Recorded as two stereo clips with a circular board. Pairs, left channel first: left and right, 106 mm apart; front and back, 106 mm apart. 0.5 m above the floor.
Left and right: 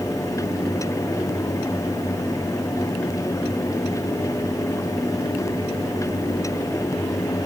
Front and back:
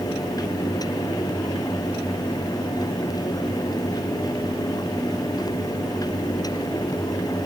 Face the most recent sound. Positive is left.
No sound to turn to.